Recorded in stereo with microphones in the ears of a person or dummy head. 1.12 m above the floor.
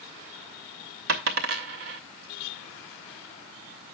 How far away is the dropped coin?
About 0.7 m.